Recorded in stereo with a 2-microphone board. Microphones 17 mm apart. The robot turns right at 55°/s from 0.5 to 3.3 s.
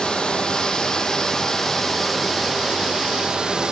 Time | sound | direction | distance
0.0 | running water | 95° left | 3.5 m